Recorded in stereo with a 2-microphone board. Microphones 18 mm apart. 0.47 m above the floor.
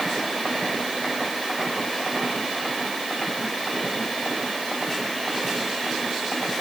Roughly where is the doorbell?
I don't hear a doorbell.